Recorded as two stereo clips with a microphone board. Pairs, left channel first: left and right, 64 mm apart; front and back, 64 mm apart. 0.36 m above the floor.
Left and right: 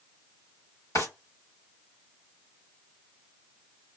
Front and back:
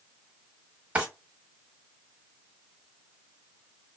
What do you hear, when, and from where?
0.9 s a drawer: 115° left, 1.2 m